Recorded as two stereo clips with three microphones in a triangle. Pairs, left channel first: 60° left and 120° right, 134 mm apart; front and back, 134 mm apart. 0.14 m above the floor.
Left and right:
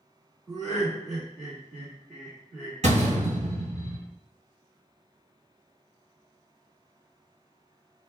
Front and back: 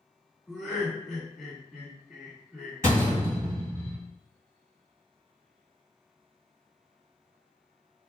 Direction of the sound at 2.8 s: 115° right.